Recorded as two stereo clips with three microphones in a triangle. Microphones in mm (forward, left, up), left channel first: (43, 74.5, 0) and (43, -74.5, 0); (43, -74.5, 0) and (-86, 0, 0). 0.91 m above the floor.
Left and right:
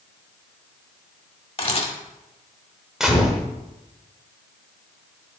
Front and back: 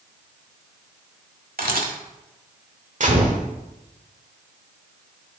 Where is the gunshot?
175° right, 1.4 m.